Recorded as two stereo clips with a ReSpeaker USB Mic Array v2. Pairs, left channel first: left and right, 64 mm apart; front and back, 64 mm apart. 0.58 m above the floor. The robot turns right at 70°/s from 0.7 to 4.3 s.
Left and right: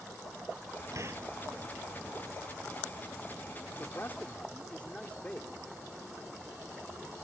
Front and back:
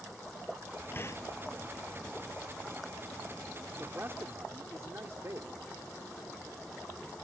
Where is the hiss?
55° right; by 1.2 s 35° right.